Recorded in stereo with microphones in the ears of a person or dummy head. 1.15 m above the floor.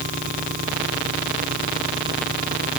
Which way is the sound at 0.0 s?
40° right (ahead or behind).